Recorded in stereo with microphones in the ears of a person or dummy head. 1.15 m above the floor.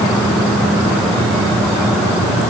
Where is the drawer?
No drawer in this recording.